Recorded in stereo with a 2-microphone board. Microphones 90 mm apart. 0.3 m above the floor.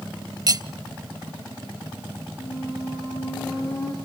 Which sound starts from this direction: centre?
A squeak, at 2.4 s.